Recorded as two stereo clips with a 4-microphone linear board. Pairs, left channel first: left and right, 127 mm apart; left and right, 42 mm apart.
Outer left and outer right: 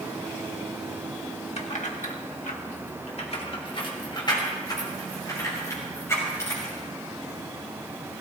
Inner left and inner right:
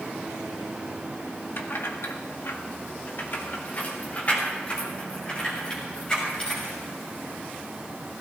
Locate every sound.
1.6 s keys jangling: 60° left (ahead or behind), 1.8 m; by 6.8 s 20° left (ahead or behind), 6.5 m